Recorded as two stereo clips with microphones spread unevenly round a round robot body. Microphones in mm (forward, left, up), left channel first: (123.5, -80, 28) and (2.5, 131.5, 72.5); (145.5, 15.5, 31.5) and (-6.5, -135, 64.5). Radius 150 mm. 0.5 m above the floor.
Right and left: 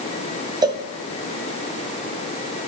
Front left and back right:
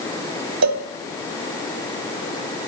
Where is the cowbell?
165° right, 1.1 m.